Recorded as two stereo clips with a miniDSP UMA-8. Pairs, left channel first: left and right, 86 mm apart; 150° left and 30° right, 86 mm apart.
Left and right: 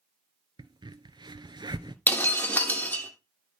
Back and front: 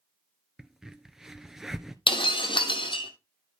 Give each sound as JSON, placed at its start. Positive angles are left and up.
{"t": 0.6, "sound": "a crack", "azimuth_deg": -115, "distance_m": 0.9}
{"t": 2.1, "sound": "breaking glass", "azimuth_deg": 155, "distance_m": 1.8}